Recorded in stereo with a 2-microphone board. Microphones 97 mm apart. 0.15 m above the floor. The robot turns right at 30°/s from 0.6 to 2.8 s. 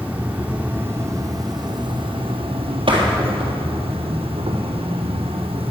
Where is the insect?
165° right, 2.5 m; by 5.7 s 100° right, 2.5 m.